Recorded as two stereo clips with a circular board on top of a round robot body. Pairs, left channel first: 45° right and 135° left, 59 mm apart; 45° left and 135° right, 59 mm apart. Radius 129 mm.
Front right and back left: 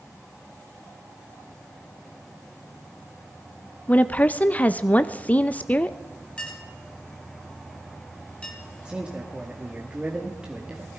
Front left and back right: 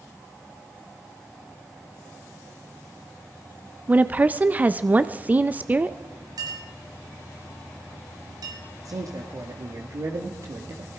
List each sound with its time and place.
3.9 s a woman speaking: 90° right, 0.8 m
6.4 s a clink: 120° right, 3.5 m
8.8 s a man speaking: 150° right, 1.9 m